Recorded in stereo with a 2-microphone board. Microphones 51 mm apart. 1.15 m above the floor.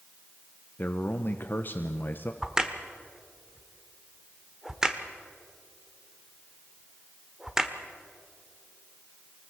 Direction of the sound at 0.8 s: 45° left (ahead or behind).